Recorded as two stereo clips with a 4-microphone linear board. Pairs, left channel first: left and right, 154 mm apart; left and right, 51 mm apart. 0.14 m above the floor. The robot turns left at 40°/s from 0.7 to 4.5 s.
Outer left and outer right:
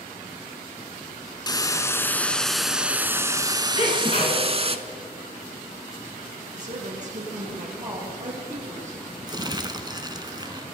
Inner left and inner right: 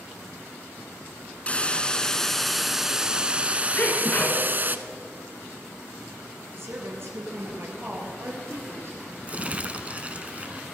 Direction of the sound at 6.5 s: 55° right (ahead or behind).